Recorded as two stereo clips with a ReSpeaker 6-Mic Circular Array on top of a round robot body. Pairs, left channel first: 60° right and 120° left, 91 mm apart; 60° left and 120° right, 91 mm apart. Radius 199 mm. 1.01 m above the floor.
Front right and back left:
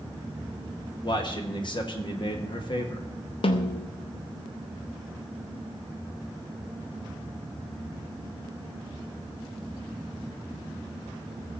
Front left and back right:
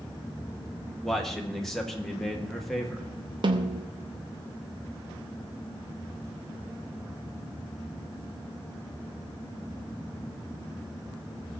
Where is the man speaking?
25° right, 2 m.